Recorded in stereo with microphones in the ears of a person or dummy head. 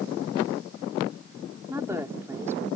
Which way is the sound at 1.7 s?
15° right (ahead or behind).